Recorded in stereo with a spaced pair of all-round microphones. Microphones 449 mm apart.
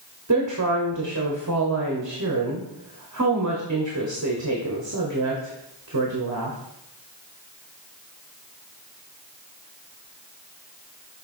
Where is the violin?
I don't hear a violin.